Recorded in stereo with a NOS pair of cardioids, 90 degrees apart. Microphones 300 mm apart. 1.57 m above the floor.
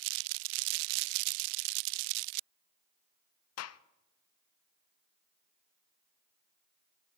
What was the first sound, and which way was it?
A gunshot, 55° left.